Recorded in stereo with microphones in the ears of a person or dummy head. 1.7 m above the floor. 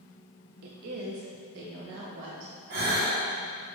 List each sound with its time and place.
0.6 s a woman speaking: 50° right (ahead or behind), 0.9 m; by 2.5 s 65° right (ahead or behind), 1.8 m
2.7 s a gasp: 40° right (ahead or behind), 2 m